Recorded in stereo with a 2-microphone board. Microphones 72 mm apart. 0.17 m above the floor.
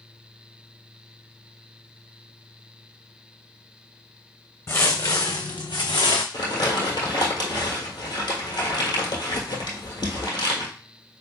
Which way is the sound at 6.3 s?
75° left (ahead or behind).